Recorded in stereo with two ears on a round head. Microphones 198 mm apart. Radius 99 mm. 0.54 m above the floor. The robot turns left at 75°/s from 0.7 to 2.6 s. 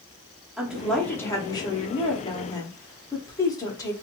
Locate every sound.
0.6 s a woman speaking: 5° right (ahead or behind), 0.8 m; by 3.9 s 15° left (ahead or behind), 0.8 m